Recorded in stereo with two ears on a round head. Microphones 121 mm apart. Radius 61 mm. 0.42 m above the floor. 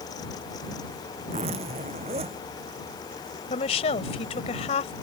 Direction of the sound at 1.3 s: 45° right (ahead or behind).